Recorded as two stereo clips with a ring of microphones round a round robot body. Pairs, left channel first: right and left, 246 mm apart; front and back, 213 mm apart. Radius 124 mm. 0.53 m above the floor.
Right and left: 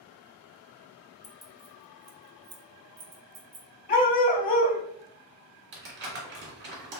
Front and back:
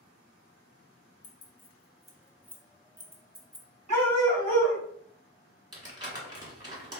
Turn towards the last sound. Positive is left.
turn(degrees=115)